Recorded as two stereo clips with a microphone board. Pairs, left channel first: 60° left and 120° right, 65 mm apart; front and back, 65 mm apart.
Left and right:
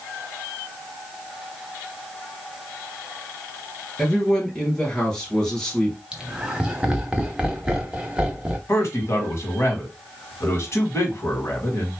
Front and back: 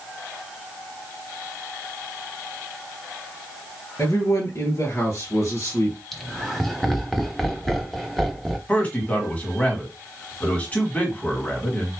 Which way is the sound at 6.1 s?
85° right.